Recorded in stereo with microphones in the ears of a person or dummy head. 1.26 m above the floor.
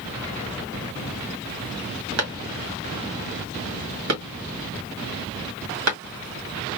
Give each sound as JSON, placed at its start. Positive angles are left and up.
{"t": 2.2, "sound": "a clap", "side_deg": -80, "distance_m": 1.8}